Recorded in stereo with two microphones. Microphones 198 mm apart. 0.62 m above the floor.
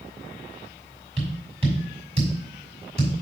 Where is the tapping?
30° right (ahead or behind), 4.5 m.